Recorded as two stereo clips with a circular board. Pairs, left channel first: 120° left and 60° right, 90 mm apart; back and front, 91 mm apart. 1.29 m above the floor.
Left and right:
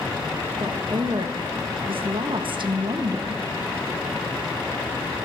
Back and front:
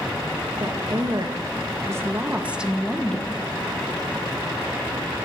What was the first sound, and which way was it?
A woman speaking, 35° right.